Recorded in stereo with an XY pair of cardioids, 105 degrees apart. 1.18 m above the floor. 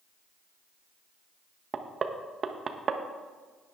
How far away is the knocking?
About 1.0 m.